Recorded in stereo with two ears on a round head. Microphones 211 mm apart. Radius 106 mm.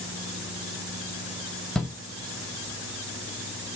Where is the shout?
5° left (ahead or behind), 1.0 m.